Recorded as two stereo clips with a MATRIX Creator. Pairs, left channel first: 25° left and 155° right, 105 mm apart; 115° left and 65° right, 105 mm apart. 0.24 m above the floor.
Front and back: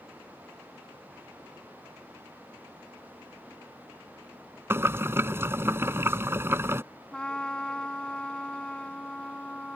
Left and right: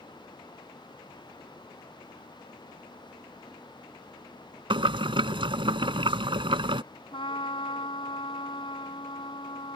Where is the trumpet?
105° left.